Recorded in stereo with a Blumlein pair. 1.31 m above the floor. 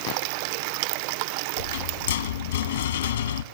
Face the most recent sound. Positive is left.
turn(degrees=65)